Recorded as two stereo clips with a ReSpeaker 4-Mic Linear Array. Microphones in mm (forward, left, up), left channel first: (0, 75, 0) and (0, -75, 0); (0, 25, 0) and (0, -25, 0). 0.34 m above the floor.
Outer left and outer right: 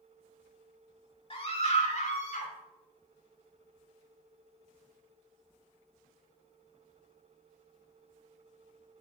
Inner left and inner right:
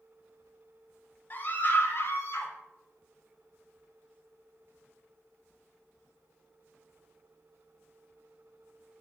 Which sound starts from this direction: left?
A scream, at 1.3 s.